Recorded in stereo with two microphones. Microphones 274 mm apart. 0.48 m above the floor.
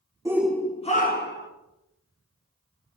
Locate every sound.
0.2 s a shout: 10° right (ahead or behind), 0.8 m; by 1.5 s 40° left (ahead or behind), 1.2 m